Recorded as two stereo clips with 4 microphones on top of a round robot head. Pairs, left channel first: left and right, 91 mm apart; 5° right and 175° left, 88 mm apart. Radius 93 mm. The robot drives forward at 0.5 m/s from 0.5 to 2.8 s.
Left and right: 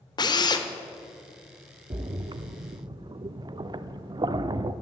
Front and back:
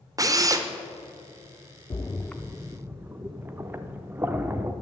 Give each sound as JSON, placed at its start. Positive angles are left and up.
{"t": 0.2, "sound": "a drill", "azimuth_deg": 130, "distance_m": 0.9}
{"t": 1.9, "sound": "a splash", "azimuth_deg": -55, "distance_m": 0.5}